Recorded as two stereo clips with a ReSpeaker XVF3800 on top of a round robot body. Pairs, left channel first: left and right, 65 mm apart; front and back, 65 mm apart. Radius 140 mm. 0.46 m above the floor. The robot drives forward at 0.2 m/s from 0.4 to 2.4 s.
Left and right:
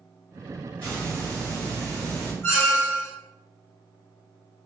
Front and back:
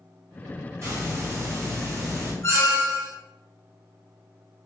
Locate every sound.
0.8 s a hiss: 155° left, 1.5 m; by 2.3 s 160° left, 1.7 m
2.4 s a squeak: 50° left, 1.0 m